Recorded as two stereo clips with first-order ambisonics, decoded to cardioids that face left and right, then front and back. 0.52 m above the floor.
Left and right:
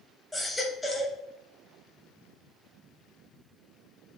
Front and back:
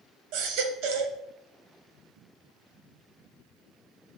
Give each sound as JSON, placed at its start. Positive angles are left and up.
{"t": 0.3, "sound": "a baby crying", "azimuth_deg": 180, "distance_m": 0.9}